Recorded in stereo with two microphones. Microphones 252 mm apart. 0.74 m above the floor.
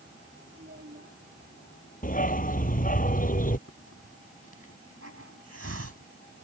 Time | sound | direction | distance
0.5 | a child speaking | 45° right (ahead or behind) | ?
2.0 | a dog barking | 35° left (ahead or behind) | ?
3.7 | a hiss | 70° right (ahead or behind) | ?